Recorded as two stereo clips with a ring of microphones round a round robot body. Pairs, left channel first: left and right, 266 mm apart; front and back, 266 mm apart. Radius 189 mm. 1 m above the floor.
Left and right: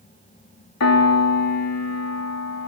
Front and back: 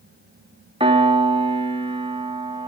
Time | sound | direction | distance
0.8 | a piano | 110° left | 2.5 m